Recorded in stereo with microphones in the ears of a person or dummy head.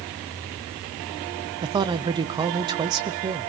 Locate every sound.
1.6 s a man speaking: 25° right (ahead or behind), 0.7 m